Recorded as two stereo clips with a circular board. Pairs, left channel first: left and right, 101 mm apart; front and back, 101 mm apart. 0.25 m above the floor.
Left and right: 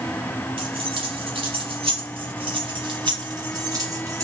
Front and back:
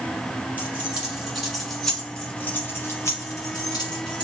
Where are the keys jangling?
105° right, 1.8 m; by 4.2 s 35° right, 1.6 m.